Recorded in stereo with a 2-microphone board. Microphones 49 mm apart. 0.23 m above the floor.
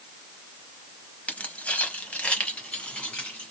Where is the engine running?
I don't hear an engine running.